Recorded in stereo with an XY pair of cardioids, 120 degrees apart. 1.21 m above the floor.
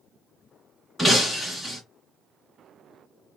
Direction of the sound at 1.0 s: 5° left.